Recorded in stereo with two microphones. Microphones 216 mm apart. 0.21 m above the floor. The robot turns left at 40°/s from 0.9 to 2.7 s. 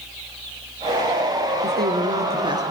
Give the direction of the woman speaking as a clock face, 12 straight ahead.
4 o'clock.